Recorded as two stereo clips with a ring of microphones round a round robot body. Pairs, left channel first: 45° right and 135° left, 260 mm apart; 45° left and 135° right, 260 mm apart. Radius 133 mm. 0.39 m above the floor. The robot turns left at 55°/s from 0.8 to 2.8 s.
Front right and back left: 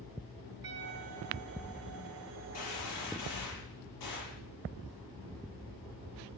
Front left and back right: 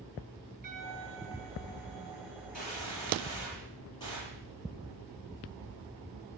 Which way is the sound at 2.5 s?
15° right.